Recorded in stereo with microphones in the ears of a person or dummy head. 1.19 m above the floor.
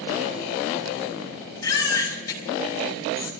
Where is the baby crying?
20° left (ahead or behind), 7 m.